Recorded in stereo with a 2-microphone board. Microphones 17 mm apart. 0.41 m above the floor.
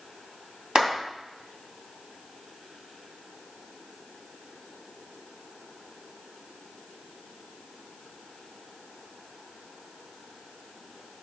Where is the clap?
50° right (ahead or behind), 3 m.